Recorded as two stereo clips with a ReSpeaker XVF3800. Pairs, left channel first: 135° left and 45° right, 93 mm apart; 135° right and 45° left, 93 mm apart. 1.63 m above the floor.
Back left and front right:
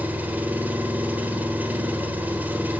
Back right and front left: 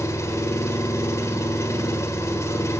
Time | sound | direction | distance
0.0 | an engine running | 105° right | 1.6 m